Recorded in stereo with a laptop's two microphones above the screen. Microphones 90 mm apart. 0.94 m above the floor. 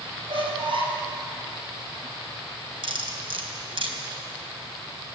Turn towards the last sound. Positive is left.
turn(degrees=-65)  # may be behind; listen again after turning